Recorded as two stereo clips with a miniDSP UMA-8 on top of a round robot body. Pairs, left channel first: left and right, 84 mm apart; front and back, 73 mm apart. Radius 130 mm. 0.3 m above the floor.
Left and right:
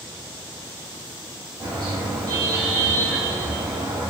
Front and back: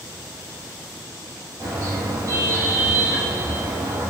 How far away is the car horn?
About 9 m.